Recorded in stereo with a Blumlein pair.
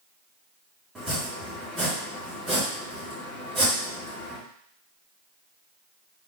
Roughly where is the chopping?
Ahead.